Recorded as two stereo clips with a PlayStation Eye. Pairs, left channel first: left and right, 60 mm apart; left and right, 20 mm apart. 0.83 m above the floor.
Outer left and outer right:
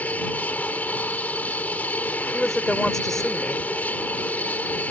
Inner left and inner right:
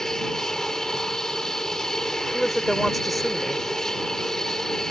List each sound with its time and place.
0.0 s an aircraft: 25° left (ahead or behind)
2.2 s a woman speaking: 5° left (ahead or behind)